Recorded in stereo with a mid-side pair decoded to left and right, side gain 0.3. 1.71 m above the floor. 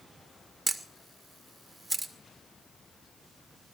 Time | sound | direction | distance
0.7 | a camera shutter | 30° right | 2 m